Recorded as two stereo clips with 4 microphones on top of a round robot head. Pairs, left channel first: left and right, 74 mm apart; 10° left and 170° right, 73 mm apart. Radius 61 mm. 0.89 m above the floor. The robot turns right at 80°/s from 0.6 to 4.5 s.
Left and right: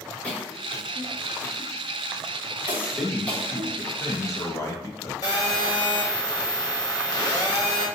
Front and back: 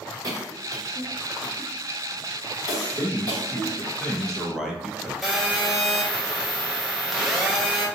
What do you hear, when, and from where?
0.2 s a cough: 165° left, 1.4 m; by 3.9 s 70° left, 1.4 m
2.9 s a man speaking: 15° right, 1.1 m; by 5.1 s 110° left, 1.1 m
5.2 s a phone buzzing: 95° left, 0.7 m